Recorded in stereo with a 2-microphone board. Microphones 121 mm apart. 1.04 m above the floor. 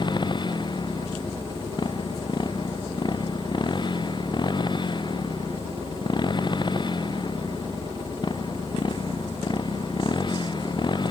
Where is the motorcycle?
40° left (ahead or behind).